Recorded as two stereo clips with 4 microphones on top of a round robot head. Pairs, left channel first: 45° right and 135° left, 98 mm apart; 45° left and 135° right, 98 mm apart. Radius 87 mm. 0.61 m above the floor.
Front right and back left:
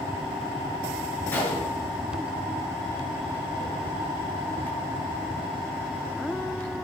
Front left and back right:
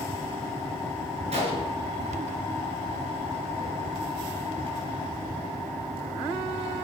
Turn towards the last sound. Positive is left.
turn(degrees=-115)